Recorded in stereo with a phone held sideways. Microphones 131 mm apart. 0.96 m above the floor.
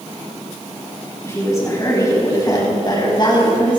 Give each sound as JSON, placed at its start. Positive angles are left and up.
{"t": 1.2, "sound": "a woman speaking", "side_deg": 20, "distance_m": 6.0}